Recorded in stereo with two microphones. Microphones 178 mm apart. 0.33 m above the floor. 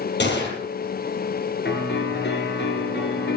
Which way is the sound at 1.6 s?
80° left.